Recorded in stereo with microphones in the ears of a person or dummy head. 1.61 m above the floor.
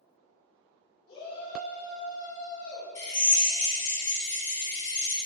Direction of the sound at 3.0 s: 25° left (ahead or behind).